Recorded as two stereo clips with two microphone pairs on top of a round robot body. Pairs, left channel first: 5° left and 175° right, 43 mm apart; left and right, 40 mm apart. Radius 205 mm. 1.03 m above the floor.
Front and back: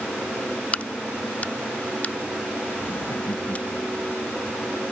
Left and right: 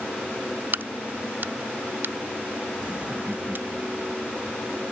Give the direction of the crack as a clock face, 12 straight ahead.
2 o'clock.